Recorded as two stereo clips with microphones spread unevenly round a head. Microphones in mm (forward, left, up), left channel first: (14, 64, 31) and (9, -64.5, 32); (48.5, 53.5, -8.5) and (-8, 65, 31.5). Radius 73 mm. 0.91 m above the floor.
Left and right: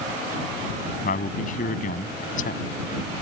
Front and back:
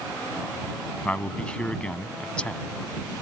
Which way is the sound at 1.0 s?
65° left.